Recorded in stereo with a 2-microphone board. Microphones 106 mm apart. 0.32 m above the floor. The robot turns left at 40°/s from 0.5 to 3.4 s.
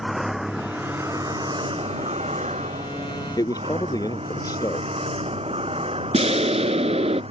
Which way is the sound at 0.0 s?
5° right.